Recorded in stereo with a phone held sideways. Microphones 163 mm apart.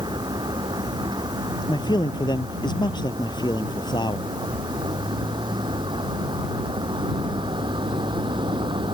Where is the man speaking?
25° left (ahead or behind).